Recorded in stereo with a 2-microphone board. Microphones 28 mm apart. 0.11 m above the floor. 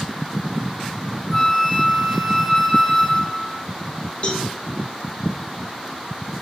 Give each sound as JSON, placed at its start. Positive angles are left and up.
{"t": 1.3, "sound": "a flute", "side_deg": 10, "distance_m": 1.6}
{"t": 4.2, "sound": "a cowbell", "side_deg": 45, "distance_m": 2.0}